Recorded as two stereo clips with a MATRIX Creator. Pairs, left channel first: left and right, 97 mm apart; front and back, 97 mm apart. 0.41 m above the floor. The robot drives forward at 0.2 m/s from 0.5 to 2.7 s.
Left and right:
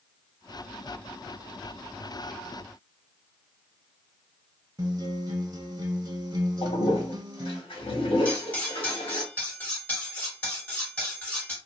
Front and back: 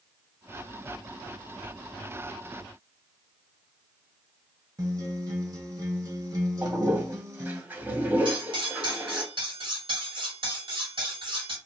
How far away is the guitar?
About 0.7 m.